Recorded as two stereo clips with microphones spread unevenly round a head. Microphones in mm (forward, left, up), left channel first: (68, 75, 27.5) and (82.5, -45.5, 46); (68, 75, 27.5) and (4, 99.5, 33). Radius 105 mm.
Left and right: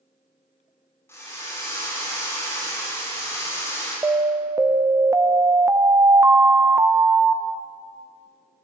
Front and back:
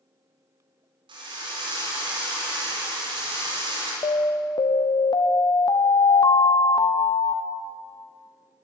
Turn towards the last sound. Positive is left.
turn(degrees=-15)